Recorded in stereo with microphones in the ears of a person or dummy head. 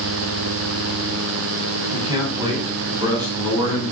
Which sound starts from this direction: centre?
A man speaking, at 1.9 s.